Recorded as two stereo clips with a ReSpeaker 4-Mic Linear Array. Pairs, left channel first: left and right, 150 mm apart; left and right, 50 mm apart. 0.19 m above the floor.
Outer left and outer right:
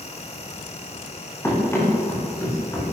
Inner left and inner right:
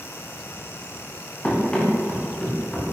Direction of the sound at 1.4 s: 15° left (ahead or behind).